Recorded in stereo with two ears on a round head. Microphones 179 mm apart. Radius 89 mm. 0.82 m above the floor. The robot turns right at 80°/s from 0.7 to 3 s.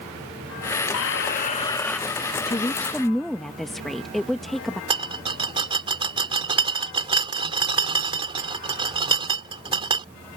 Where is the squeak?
95° left; by 2.0 s straight behind.